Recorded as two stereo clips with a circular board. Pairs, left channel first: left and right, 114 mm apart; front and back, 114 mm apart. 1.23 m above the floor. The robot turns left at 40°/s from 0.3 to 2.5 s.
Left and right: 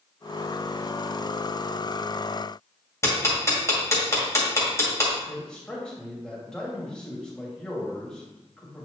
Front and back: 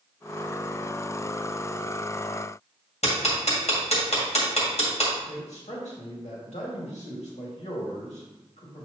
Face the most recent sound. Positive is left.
turn(degrees=5)